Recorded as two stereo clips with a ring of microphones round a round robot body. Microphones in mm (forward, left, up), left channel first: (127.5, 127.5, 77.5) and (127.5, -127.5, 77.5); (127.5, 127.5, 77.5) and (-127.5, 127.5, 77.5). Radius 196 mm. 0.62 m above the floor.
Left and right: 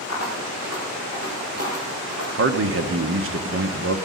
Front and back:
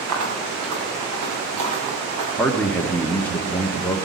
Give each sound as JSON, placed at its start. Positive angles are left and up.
{"t": 0.1, "sound": "footsteps", "azimuth_deg": -160, "distance_m": 5.0}
{"t": 2.4, "sound": "a man speaking", "azimuth_deg": -85, "distance_m": 1.2}